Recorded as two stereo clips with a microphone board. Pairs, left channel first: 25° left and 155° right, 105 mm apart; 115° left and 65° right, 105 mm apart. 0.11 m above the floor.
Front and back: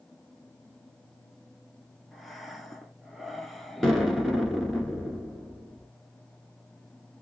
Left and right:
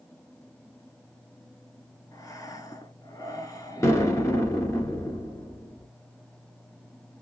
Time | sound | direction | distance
2.1 | breathing | 110° left | 0.7 m
3.8 | an explosion | 105° left | 1.2 m